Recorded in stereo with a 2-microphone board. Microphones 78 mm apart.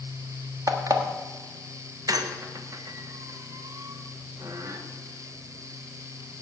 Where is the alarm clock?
45° right (ahead or behind), 1.3 m.